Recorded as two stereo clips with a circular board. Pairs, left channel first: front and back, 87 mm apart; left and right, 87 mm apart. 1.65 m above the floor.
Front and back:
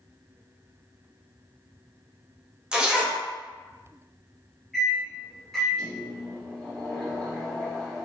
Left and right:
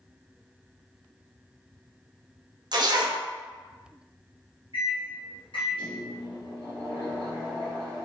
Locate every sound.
2.7 s a zipper: 100° right, 0.5 m
4.7 s a microwave: 90° left, 0.9 m